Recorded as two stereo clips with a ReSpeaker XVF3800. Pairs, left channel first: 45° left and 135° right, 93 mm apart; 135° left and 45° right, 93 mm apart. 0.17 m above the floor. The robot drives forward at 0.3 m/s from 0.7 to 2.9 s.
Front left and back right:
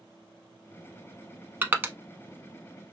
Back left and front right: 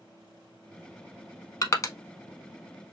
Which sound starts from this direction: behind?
Crushing, at 1.6 s.